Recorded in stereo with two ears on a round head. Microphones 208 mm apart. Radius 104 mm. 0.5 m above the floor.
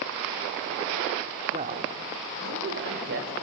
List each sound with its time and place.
1.5 s a man speaking: 30° right (ahead or behind), 0.9 m; by 3.4 s 60° right (ahead or behind), 2 m